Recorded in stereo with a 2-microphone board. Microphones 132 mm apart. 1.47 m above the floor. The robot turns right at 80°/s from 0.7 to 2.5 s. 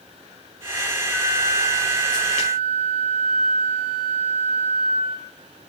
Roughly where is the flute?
Behind.